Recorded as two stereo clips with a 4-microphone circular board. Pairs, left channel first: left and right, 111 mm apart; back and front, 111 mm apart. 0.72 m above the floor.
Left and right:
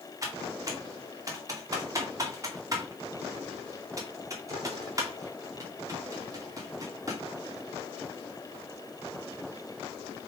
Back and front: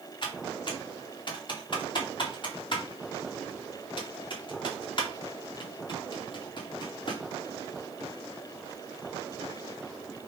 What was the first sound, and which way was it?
Typing on a keyboard, 145° right.